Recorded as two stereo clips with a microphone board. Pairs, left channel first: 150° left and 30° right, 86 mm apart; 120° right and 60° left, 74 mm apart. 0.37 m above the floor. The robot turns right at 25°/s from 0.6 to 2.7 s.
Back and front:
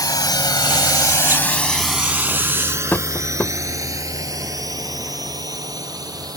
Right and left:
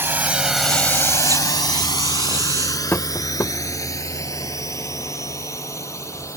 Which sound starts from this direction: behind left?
A drone, at 0.0 s.